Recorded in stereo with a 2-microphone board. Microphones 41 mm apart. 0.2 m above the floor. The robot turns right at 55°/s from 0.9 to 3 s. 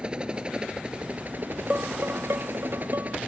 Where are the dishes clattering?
35° right (ahead or behind); by 3.2 s 75° right (ahead or behind).